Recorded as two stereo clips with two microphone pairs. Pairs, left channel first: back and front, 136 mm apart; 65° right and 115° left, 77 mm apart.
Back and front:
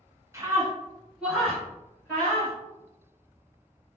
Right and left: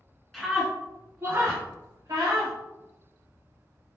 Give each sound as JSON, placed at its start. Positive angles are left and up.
{"t": 0.3, "sound": "a scream", "azimuth_deg": 15, "distance_m": 1.2}